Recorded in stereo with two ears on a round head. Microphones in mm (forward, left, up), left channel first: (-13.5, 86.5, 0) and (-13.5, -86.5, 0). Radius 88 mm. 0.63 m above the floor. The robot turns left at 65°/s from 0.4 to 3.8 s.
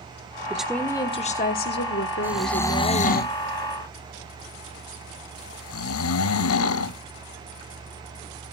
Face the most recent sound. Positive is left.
turn(degrees=90)